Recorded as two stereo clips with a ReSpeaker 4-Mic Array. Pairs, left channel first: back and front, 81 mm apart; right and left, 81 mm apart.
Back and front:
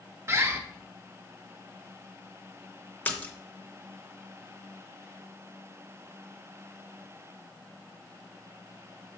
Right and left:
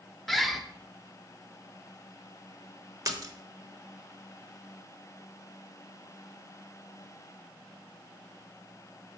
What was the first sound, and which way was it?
A bird, straight ahead.